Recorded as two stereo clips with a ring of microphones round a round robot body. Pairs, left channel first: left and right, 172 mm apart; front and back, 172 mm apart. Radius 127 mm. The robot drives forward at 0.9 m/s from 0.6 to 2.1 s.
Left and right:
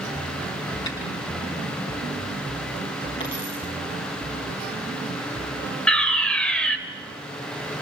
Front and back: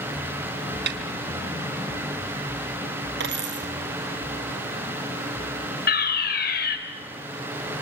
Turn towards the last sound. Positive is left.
turn(degrees=5)